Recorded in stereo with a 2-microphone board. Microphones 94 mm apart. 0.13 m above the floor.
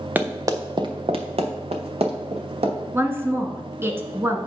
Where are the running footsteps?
15° right (ahead or behind), 1.1 m; by 2.8 s 85° right, 2.5 m.